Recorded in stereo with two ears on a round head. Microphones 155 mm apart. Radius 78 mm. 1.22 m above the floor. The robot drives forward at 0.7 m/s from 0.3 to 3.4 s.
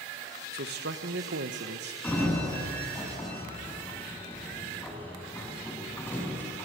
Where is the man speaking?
55° right (ahead or behind), 1.3 m; by 1.9 s 65° right (ahead or behind), 1.2 m.